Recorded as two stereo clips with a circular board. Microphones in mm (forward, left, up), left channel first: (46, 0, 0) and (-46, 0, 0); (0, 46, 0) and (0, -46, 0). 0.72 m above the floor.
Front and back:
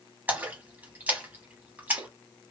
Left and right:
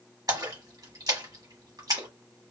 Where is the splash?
115° right, 1.2 m.